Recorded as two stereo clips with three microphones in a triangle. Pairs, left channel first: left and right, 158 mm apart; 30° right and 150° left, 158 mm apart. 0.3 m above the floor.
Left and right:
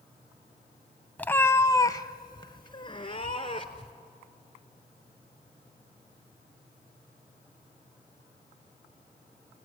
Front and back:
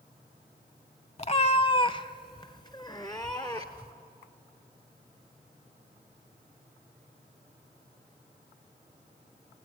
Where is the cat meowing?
10° left, 0.6 m; by 3.9 s 35° left, 1.9 m.